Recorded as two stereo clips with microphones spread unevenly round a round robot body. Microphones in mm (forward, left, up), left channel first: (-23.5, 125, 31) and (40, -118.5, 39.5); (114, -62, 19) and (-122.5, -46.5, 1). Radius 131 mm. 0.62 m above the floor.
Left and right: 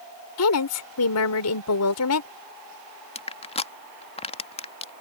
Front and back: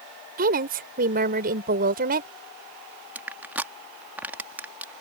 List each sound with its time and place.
0.4 s a woman speaking: 120° left
3.1 s crushing: 110° left